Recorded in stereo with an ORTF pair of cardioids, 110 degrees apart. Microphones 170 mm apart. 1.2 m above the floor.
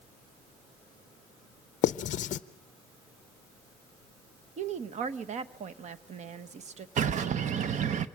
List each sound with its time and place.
1.8 s writing: 50° left, 0.5 m
4.6 s a woman speaking: 40° right, 0.9 m
7.0 s a bird: 45° right, 0.8 m